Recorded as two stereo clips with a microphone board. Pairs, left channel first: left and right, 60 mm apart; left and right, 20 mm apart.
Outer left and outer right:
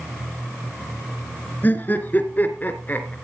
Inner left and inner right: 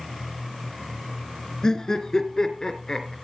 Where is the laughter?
30° left (ahead or behind), 2.0 m.